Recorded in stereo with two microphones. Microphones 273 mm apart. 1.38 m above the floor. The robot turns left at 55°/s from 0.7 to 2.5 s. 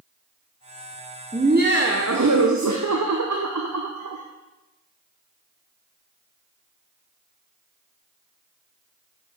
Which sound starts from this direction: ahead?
Laughter, at 1.3 s.